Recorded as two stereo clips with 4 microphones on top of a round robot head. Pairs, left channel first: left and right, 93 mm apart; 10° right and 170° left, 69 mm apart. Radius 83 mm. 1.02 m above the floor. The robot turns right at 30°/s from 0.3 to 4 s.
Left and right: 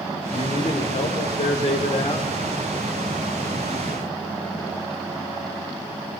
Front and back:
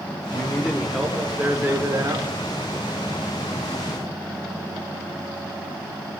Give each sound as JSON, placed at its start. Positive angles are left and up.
{"t": 0.3, "sound": "a man speaking", "azimuth_deg": 65, "distance_m": 4.5}